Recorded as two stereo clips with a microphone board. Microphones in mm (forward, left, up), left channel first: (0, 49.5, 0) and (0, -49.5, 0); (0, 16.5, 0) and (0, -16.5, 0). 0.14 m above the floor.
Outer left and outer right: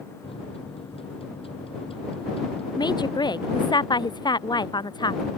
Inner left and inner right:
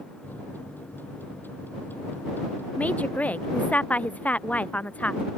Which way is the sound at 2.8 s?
50° left (ahead or behind).